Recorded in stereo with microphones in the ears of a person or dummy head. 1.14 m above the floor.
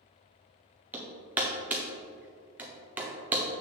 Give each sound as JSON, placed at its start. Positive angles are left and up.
{"t": 0.9, "sound": "hammering", "side_deg": -10, "distance_m": 0.8}